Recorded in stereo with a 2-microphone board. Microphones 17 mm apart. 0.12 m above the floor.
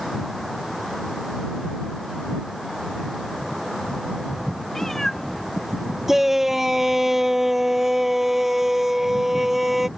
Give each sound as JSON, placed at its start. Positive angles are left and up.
{"t": 4.7, "sound": "a cat meowing", "side_deg": 30}
{"t": 6.1, "sound": "a shout", "side_deg": -25}